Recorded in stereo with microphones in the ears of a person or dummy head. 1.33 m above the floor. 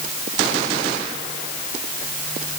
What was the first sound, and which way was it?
Only background noise.